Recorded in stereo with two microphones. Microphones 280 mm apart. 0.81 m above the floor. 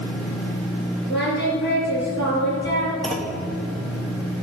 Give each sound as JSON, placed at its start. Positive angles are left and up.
{"t": 1.1, "sound": "singing", "side_deg": 40, "distance_m": 5.0}
{"t": 3.0, "sound": "a clunk", "side_deg": 0, "distance_m": 1.2}